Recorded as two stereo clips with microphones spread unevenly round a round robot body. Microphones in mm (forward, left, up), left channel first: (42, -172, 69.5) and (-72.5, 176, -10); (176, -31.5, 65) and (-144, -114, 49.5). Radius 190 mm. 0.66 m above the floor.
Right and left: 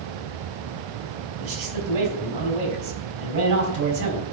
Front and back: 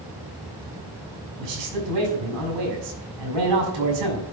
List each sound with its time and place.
1.4 s a man speaking: 150° left, 4.5 m